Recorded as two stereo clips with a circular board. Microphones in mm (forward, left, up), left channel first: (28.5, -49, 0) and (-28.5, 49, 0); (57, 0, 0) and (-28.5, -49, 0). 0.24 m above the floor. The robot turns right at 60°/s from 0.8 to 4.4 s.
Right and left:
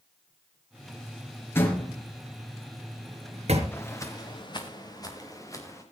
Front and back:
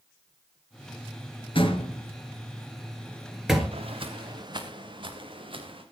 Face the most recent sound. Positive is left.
turn(degrees=-125)